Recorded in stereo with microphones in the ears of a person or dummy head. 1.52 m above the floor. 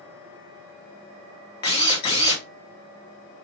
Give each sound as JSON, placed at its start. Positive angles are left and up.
{"t": 1.6, "sound": "a drill", "side_deg": 25, "distance_m": 0.7}